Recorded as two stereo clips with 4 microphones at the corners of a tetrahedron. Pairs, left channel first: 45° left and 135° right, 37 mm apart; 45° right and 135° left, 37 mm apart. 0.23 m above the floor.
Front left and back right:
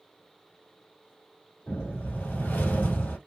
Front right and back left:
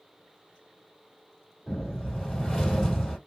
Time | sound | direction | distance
1.7 | a whoosh | 35° left | 1.9 m